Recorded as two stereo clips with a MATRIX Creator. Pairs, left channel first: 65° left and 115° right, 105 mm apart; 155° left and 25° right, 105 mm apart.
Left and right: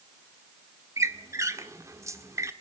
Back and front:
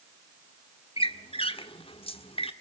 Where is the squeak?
175° right, 1.5 m.